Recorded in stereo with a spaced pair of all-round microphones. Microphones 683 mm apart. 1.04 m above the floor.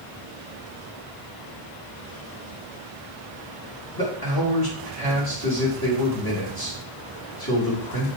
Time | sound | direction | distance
4.0 | a man speaking | 30° left (ahead or behind) | 3 m